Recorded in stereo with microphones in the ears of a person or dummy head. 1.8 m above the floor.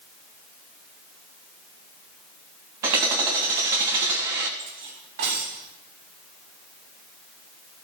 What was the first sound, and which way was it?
Hammering, 20° right (ahead or behind).